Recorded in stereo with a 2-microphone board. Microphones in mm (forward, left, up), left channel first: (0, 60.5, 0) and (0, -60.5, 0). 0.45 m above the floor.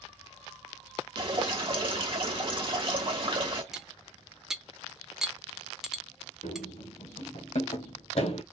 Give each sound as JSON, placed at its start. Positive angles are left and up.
{"t": 1.2, "sound": "dripping", "side_deg": -45, "distance_m": 1.1}
{"t": 3.7, "sound": "cutlery clinking", "side_deg": -5, "distance_m": 0.6}
{"t": 6.4, "sound": "running footsteps", "side_deg": 80, "distance_m": 2.5}